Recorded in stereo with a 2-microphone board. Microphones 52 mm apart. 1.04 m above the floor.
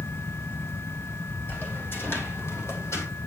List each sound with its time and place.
1.5 s footsteps: 40° left (ahead or behind), 3 m; by 3.1 s 65° left (ahead or behind), 2.5 m